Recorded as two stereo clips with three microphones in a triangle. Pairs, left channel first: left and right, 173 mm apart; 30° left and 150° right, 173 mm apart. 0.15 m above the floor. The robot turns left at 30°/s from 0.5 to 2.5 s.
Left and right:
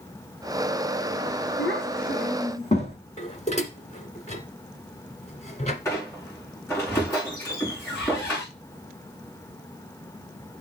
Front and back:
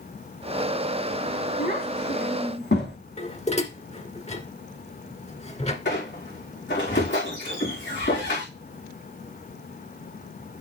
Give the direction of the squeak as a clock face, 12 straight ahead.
12 o'clock.